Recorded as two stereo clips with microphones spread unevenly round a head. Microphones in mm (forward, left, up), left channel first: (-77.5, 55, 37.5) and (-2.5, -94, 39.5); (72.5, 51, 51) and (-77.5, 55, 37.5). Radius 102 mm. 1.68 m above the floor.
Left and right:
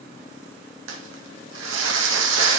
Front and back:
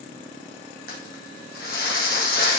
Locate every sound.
0.9 s crumpling: 45° right, 1.7 m